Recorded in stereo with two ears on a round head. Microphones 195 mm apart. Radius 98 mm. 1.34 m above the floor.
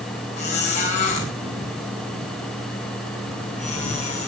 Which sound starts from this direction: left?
A squeak, at 0.4 s.